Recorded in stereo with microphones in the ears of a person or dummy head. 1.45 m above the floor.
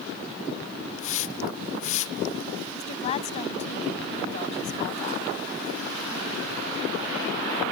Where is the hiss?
40° left (ahead or behind).